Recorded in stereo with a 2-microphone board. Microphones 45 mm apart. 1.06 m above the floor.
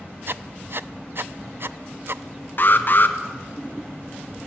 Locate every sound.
0.3 s writing: 55° right (ahead or behind), 0.5 m
2.6 s an alarm: 45° left (ahead or behind), 1.4 m